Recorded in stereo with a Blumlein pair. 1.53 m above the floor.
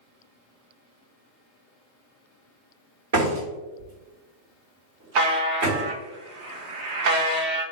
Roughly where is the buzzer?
Ahead right.